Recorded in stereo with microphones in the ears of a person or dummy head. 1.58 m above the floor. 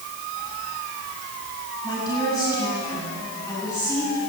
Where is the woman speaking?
25° left (ahead or behind), 9.5 m; by 4.2 s 15° left (ahead or behind), 13 m.